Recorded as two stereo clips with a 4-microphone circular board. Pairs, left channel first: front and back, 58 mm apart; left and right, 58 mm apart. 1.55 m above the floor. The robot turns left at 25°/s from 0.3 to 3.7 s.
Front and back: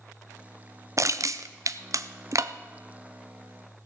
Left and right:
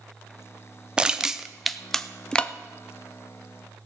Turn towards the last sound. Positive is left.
turn(degrees=130)